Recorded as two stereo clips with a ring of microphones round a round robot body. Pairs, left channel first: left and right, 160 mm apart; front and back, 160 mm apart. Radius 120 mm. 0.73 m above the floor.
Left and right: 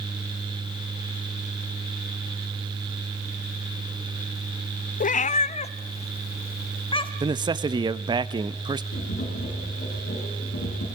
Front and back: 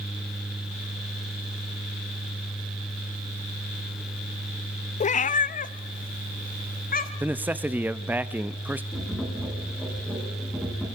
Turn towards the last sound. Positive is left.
turn(degrees=90)